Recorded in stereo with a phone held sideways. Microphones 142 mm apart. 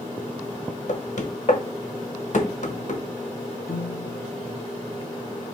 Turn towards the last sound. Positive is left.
turn(degrees=85)